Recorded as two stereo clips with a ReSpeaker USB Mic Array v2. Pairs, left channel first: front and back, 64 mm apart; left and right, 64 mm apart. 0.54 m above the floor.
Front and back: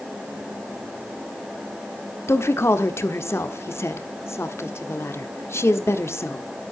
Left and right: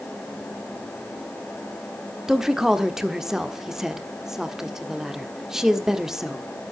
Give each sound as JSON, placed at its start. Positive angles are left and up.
{"t": 2.3, "sound": "a woman speaking", "azimuth_deg": -10, "distance_m": 1.3}